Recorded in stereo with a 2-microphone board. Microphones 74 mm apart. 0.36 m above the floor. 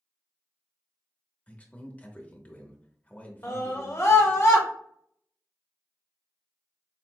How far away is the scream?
About 1.5 m.